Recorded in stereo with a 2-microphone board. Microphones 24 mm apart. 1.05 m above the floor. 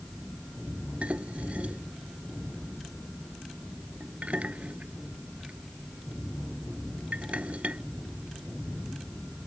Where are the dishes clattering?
65° right (ahead or behind).